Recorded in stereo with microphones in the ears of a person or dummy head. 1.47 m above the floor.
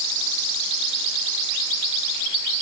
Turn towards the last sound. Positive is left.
No sound to turn to.